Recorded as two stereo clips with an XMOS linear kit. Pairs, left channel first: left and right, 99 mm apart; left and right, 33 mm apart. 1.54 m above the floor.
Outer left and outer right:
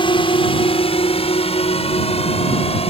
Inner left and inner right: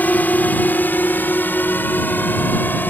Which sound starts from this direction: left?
A drone, at 0.0 s.